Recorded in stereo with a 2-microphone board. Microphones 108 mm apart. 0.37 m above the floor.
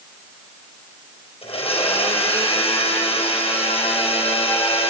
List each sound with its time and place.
1.4 s a blender: 65° left (ahead or behind), 4 m